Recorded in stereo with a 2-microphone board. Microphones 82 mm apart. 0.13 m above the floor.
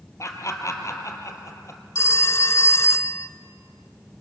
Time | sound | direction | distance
0.2 | laughter | 40° left (ahead or behind) | 3.5 m
1.9 | a phone ringing | 35° left (ahead or behind) | 0.8 m